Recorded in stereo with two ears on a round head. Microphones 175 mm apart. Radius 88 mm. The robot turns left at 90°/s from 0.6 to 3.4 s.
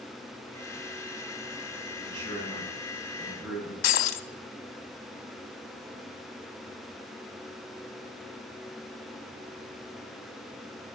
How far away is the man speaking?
About 5 m.